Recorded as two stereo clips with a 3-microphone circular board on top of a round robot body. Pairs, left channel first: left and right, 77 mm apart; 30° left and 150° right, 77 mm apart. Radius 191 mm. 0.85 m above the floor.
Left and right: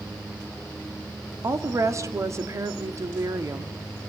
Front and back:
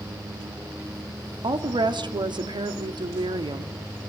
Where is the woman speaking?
140° right, 2.5 m.